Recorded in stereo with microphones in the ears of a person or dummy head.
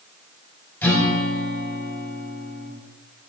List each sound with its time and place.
0.8 s a guitar: 5° left (ahead or behind), 3.5 m